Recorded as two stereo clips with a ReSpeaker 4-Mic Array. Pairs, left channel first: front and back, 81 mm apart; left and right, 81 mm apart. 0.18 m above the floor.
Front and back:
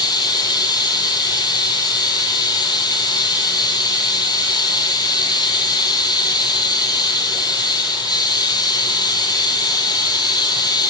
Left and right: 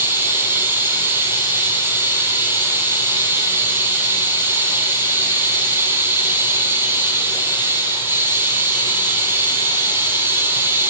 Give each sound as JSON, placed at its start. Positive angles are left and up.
{"t": 0.0, "sound": "running water", "azimuth_deg": -30, "distance_m": 5.0}